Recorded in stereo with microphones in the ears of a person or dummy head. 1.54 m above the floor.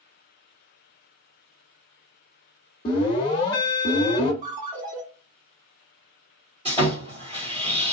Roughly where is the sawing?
Right.